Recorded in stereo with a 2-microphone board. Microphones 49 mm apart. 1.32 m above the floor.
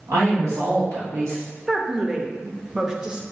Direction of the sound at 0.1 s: 85° right.